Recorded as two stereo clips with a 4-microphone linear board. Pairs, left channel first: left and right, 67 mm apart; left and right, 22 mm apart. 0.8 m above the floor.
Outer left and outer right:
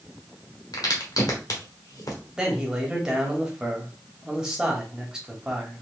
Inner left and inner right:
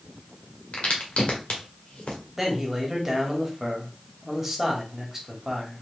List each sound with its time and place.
0.7 s a crack: 65° left (ahead or behind), 1.4 m
2.4 s a man speaking: 10° right (ahead or behind), 1.5 m